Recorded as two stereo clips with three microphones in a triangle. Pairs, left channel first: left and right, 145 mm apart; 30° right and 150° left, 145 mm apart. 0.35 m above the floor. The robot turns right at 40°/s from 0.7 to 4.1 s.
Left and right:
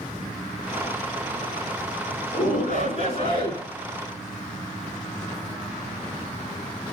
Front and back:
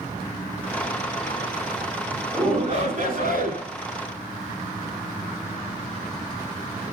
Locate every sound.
2.3 s a shout: 105° left, 4.5 m; by 3.6 s 155° left, 4.5 m